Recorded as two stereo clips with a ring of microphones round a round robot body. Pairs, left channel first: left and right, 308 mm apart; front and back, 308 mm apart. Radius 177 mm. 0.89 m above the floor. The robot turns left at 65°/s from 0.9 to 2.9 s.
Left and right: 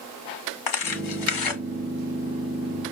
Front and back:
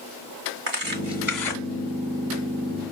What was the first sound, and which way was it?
Tearing paper, 120° left.